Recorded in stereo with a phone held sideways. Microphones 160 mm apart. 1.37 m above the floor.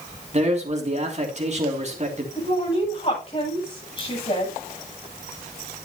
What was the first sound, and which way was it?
A man speaking, 45° right (ahead or behind).